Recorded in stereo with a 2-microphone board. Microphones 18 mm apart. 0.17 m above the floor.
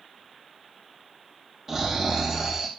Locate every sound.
1.7 s snoring: 15° right (ahead or behind), 3.5 m